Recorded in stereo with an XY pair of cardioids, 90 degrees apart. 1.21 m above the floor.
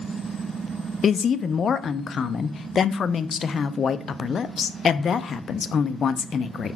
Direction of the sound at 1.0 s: 55° left.